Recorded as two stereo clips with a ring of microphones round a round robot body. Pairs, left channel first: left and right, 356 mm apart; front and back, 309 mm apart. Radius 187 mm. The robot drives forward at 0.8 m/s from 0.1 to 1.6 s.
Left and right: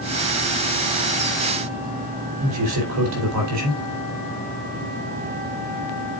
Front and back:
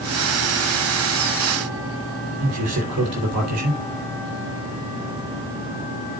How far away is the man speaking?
About 3 m.